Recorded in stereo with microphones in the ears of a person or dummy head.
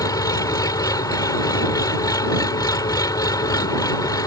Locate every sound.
0.0 s an engine running: 25° left (ahead or behind)